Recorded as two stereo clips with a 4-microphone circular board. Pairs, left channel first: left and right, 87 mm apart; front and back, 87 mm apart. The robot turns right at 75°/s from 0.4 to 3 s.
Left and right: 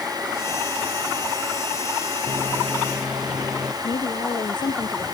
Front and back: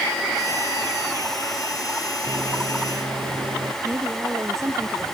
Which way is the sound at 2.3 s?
135° left.